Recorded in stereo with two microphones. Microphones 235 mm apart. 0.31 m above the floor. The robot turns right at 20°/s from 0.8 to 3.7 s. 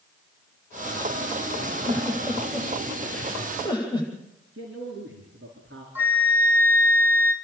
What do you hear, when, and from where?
1.6 s a giggle: 25° right (ahead or behind), 9 m; by 4.1 s 15° left (ahead or behind), 9 m
4.5 s a man speaking: 55° right (ahead or behind), 5 m
6.0 s a flute: 10° right (ahead or behind), 4.5 m